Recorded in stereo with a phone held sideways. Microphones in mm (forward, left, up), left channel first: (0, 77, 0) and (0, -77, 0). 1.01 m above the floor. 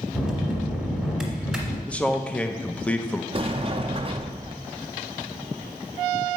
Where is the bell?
5° right (ahead or behind), 1.7 m.